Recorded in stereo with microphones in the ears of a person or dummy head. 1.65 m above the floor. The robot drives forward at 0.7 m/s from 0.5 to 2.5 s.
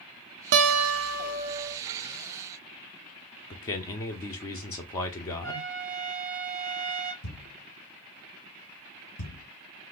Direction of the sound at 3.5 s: 20° left (ahead or behind).